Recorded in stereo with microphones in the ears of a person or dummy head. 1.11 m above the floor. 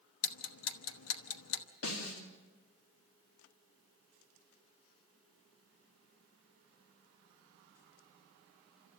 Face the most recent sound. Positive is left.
turn(degrees=75)  # may be behind; listen again after turning